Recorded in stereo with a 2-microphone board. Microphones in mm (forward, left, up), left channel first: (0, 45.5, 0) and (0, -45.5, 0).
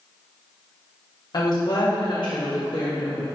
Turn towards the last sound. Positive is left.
turn(degrees=55)  # may be behind; listen again after turning